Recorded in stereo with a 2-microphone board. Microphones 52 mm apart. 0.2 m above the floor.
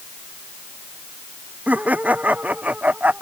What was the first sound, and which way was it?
Laughter, 30° right (ahead or behind).